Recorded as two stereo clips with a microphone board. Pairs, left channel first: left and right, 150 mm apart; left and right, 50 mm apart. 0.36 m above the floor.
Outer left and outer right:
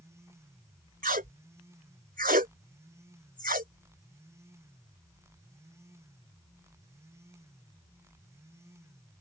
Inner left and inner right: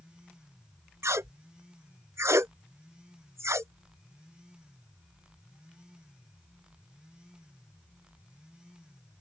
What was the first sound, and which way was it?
Tape being pulled, 70° right (ahead or behind).